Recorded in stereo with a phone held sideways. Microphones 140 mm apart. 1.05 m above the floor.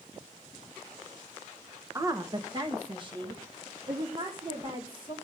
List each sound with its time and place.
1.9 s a woman speaking: 20° right (ahead or behind), 0.7 m; by 5.1 s 40° right (ahead or behind), 3.5 m